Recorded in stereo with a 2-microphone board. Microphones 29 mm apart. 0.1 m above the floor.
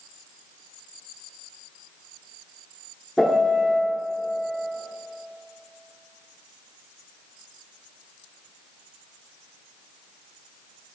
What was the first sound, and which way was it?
A piano, 10° left (ahead or behind).